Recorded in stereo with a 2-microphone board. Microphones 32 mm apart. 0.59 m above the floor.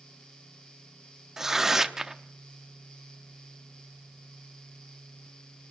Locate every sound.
1.4 s tearing paper: 15° right (ahead or behind), 0.8 m